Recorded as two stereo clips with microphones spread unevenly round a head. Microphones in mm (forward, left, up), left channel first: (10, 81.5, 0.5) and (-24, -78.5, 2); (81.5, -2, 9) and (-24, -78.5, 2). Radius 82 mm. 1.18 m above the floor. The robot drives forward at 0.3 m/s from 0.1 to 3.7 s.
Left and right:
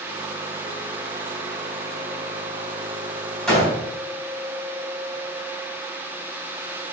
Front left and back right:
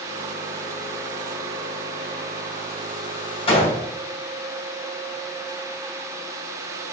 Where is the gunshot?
10° right, 3.5 m.